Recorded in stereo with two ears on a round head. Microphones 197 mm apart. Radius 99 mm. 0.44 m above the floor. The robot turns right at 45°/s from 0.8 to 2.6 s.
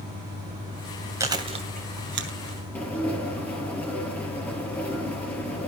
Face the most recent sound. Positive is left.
turn(degrees=5)  # may be behind; listen again after turning